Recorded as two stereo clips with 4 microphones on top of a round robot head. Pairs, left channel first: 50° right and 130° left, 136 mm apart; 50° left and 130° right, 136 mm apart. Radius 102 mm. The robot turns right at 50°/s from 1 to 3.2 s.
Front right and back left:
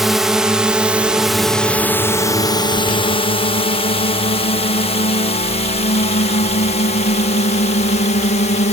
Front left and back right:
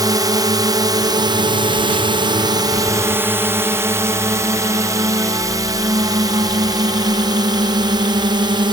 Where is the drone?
145° right; by 8.7 s 75° right.